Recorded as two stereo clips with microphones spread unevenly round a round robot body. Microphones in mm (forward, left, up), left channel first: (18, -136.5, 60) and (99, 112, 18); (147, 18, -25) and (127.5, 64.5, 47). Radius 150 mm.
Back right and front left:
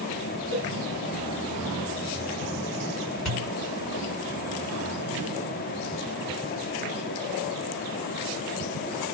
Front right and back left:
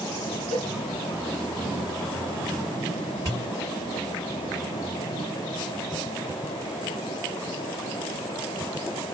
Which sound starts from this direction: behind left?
A cowbell, at 0.5 s.